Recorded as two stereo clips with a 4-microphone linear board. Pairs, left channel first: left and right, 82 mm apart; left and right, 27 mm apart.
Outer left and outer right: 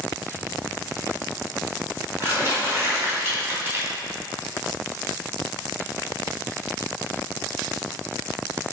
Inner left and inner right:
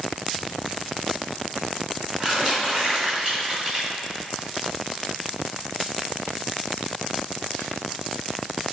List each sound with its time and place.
0.4 s crumpling: 30° right (ahead or behind), 2.5 m